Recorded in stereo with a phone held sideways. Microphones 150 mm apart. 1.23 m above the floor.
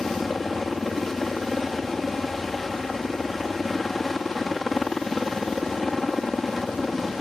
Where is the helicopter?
Centre (ahead or behind).